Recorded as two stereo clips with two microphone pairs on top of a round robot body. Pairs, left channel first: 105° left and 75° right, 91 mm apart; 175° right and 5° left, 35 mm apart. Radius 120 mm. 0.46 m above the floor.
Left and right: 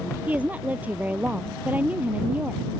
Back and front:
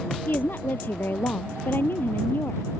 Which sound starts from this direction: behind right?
A woman speaking, at 0.3 s.